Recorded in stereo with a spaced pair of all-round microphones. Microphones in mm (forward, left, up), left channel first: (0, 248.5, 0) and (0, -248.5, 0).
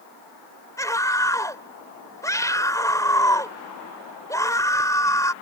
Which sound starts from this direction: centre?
A scream, at 0.8 s.